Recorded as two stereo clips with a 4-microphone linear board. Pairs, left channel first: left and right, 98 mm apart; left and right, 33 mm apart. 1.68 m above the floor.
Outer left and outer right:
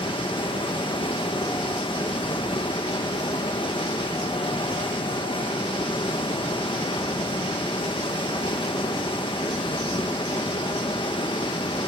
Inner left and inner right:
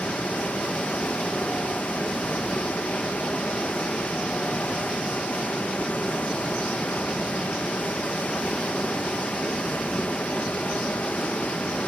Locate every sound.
0.0 s running water: 55° left (ahead or behind), 1.2 m